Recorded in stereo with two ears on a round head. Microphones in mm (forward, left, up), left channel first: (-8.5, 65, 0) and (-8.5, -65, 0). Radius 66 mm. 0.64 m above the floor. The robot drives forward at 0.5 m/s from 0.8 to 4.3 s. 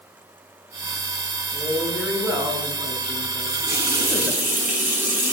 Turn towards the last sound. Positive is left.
turn(degrees=-15)  # may be behind; listen again after turning